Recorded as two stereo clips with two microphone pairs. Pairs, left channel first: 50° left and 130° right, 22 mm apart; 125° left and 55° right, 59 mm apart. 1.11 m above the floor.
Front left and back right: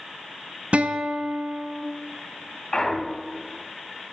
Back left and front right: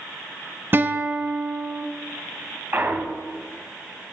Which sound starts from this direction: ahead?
A clunk, at 2.7 s.